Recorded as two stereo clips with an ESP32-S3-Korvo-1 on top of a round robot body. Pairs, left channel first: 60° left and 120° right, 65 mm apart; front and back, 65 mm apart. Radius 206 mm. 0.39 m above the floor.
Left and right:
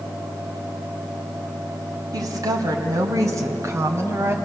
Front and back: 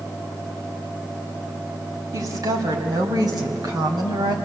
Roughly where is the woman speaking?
Behind right.